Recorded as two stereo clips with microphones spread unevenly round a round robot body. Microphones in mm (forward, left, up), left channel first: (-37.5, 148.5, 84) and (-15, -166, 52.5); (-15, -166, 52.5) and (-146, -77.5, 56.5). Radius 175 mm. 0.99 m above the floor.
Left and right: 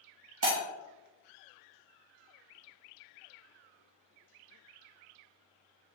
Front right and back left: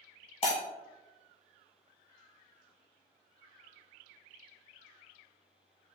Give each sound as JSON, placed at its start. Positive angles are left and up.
{"t": 0.4, "sound": "breaking glass", "azimuth_deg": -50, "distance_m": 1.0}